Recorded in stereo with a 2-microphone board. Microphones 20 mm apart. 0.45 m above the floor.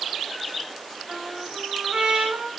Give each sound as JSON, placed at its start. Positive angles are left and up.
{"t": 1.1, "sound": "a trumpet", "side_deg": -55, "distance_m": 4.0}